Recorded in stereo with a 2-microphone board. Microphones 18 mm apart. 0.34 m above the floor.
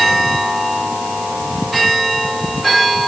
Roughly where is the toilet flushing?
No toilet flushing in this recording.